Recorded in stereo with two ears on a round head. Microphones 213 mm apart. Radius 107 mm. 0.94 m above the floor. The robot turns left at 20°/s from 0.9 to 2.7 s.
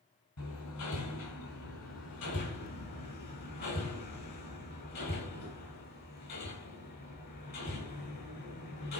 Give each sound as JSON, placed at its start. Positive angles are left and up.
{"t": 0.4, "sound": "hammering", "side_deg": 80, "distance_m": 5.0}